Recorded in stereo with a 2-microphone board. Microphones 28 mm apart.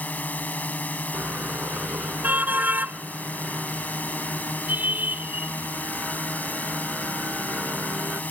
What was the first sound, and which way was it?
A drone, 75° left (ahead or behind).